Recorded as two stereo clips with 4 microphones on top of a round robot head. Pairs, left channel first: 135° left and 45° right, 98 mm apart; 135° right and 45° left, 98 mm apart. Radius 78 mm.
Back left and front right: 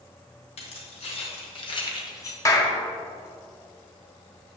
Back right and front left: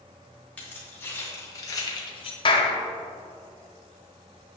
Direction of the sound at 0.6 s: 150° left.